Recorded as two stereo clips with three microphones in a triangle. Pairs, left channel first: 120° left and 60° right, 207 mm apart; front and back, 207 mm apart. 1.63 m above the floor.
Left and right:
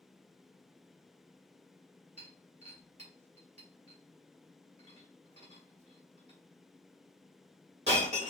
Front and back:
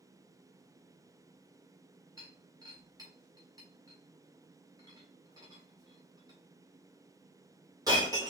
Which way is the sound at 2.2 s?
110° right.